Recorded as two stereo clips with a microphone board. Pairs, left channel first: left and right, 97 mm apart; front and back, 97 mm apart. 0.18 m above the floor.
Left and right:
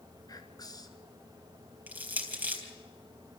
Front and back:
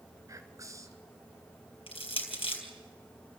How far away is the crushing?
About 3.5 m.